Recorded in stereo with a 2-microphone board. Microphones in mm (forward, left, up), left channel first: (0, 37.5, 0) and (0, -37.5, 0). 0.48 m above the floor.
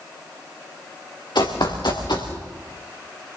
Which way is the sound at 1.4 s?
65° left (ahead or behind).